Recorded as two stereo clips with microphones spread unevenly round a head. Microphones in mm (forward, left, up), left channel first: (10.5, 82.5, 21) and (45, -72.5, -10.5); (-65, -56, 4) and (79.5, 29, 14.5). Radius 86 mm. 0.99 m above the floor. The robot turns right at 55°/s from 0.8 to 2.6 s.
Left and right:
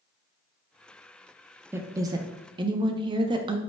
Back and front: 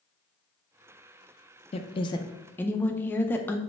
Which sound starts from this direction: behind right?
A woman speaking, at 1.7 s.